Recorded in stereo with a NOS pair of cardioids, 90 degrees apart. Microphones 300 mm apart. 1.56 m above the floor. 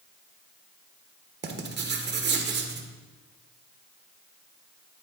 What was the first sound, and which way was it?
Writing, 35° right.